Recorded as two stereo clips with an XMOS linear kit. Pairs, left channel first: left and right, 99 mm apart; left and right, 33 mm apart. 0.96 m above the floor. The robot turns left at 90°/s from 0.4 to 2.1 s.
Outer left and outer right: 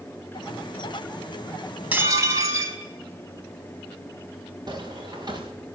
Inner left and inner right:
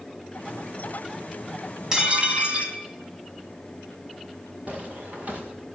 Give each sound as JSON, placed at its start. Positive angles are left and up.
{"t": 1.9, "sound": "dishes clattering", "side_deg": -15, "distance_m": 4.0}
{"t": 4.7, "sound": "footsteps", "side_deg": -45, "distance_m": 6.0}